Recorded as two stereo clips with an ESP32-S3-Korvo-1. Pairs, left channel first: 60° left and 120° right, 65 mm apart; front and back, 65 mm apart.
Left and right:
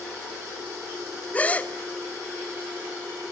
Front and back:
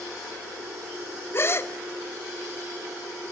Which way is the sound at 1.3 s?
10° left.